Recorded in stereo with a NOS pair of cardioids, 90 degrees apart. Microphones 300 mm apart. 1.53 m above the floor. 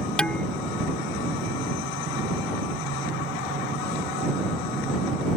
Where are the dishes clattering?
5° left.